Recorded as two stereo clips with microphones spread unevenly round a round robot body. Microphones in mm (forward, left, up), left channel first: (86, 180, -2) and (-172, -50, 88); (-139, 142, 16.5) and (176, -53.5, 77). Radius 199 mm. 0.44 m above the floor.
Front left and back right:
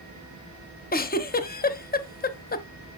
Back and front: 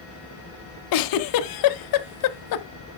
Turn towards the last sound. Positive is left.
turn(degrees=110)